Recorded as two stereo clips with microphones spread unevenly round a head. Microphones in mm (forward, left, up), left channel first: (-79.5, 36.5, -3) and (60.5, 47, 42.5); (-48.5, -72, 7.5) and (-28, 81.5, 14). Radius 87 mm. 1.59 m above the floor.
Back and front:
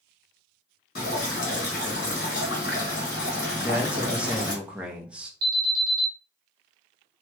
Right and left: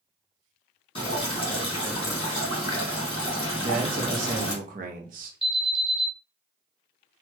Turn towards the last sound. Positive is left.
turn(degrees=-10)